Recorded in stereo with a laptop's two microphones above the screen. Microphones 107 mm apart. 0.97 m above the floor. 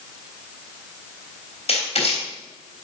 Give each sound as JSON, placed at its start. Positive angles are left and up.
{"t": 1.7, "sound": "writing", "side_deg": 80, "distance_m": 3.5}